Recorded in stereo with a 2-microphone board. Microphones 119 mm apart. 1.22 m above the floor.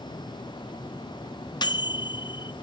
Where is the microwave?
40° left (ahead or behind), 0.5 m.